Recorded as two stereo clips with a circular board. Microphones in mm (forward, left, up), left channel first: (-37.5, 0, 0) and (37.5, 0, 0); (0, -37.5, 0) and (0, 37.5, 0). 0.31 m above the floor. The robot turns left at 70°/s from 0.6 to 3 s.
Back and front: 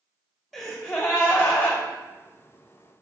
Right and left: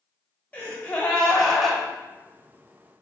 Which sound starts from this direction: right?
A gasp, at 0.5 s.